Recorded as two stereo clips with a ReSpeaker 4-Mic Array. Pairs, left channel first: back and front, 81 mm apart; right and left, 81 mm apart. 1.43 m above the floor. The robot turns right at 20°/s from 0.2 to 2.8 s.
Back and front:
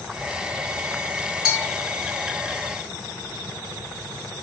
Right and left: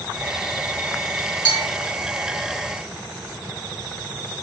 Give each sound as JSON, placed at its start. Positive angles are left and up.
{"t": 1.4, "sound": "a bell", "azimuth_deg": 75, "distance_m": 1.3}